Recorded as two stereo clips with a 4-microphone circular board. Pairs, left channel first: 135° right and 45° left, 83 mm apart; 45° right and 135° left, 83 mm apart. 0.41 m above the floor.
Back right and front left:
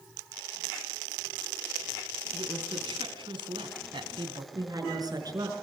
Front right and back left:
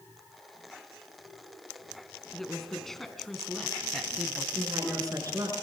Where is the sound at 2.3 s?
40° left, 3.5 m; by 4.5 s 45° left, 2 m.